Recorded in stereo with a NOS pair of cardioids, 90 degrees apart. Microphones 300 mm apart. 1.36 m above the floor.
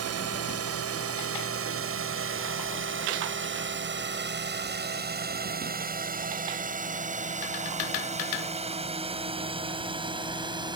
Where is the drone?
55° right; by 10.8 s 15° right.